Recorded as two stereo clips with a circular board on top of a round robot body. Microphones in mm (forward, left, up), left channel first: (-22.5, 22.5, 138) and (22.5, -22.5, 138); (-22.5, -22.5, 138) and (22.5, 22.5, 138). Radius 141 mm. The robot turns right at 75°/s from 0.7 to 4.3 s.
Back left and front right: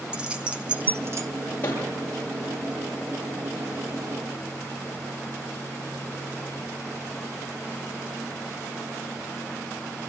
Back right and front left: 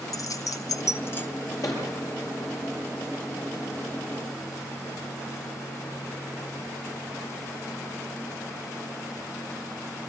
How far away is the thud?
About 7 m.